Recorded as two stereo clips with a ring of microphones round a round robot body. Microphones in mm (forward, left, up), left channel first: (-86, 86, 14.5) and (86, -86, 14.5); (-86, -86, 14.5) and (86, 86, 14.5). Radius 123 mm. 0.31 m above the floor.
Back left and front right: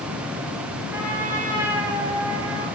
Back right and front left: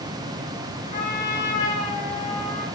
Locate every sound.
0.9 s a trumpet: 125° right, 3.5 m